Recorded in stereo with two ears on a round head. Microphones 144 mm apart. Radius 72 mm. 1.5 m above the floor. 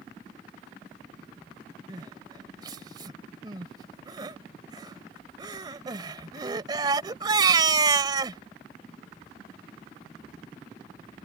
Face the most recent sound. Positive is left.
turn(degrees=-25)  # may be behind; listen again after turning